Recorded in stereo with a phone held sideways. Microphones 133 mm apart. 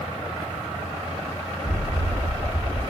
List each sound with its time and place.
1.6 s an explosion: 60° right (ahead or behind), 0.8 m